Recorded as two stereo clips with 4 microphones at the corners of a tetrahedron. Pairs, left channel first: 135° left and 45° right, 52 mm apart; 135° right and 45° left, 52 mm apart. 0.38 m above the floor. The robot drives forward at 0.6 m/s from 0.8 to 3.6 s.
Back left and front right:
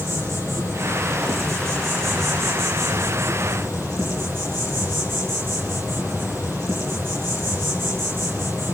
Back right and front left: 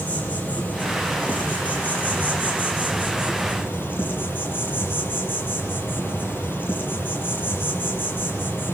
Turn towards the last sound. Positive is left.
turn(degrees=-85)